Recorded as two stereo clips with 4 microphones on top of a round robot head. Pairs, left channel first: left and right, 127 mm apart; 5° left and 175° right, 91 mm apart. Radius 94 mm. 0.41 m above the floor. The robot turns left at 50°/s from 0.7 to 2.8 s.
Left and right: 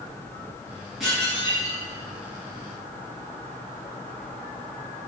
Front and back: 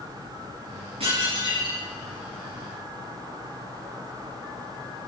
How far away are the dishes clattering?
About 5 m.